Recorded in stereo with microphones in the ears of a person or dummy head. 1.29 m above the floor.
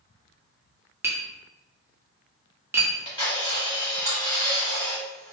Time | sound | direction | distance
1.0 | tapping | 20° right (ahead or behind) | 0.5 m
2.8 | a camera shutter | 20° left (ahead or behind) | 1.5 m